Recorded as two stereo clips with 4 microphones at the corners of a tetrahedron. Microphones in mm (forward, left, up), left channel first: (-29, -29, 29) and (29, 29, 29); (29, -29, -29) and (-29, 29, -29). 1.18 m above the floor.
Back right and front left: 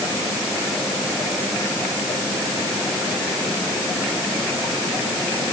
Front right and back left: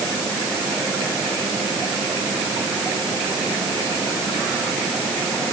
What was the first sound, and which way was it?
Only background noise.